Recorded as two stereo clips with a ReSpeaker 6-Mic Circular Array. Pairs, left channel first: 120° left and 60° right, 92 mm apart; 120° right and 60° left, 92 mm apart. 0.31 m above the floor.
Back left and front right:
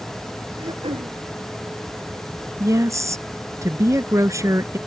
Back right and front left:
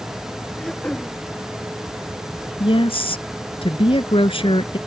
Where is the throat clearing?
40° right.